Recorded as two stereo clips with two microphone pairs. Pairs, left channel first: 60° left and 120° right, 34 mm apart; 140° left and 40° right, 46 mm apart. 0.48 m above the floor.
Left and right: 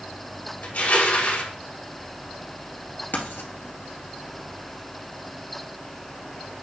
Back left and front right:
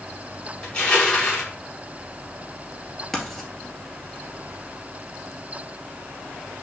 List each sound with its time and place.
0.6 s crushing: 70° left, 2.5 m
3.1 s writing: 55° left, 2 m